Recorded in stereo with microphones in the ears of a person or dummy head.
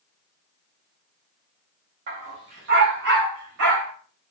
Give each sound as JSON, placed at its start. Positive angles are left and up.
{"t": 2.1, "sound": "a dog barking", "side_deg": -30, "distance_m": 1.4}